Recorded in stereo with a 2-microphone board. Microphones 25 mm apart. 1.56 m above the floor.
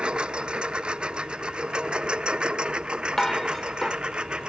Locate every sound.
0.0 s a lawn mower: 35° right (ahead or behind)
3.2 s dishes clattering: 15° left (ahead or behind)